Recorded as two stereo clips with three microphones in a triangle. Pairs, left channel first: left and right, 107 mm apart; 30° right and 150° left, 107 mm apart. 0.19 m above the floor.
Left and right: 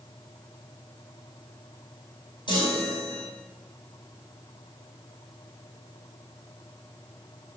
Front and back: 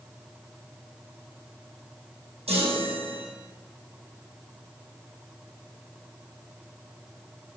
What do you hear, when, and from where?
2.5 s a chime: 135° left, 3.5 m